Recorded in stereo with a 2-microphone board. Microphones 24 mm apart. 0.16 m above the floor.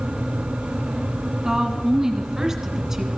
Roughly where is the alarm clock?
I don't hear an alarm clock.